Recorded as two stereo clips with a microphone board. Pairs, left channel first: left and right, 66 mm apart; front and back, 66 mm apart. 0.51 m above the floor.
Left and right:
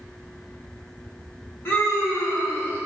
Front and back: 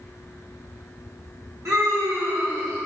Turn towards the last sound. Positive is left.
turn(degrees=145)